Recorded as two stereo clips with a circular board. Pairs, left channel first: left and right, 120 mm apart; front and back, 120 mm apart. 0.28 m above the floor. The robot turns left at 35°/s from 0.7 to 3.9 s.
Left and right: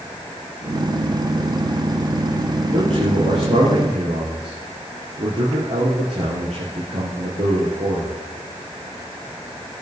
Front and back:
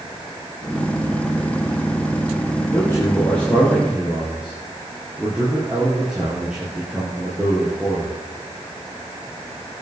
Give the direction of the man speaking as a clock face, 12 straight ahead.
2 o'clock.